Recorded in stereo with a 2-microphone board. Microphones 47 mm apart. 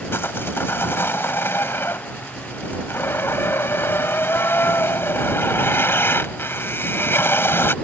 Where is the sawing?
60° left (ahead or behind).